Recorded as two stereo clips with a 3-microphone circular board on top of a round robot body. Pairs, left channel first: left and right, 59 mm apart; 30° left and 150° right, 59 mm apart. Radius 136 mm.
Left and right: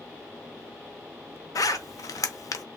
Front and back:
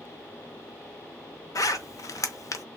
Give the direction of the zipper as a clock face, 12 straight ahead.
10 o'clock.